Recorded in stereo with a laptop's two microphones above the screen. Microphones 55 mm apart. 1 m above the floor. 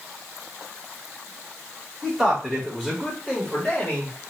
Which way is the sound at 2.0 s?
10° right (ahead or behind).